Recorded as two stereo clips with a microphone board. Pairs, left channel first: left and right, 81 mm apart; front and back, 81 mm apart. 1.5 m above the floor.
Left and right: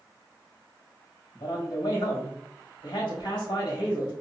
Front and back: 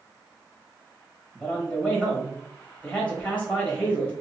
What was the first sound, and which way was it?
A man speaking, 75° left.